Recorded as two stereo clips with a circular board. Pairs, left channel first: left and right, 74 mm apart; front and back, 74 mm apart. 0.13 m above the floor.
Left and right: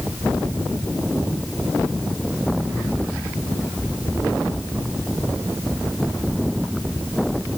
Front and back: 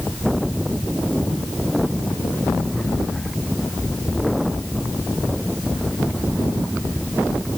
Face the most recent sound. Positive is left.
No sound to turn to.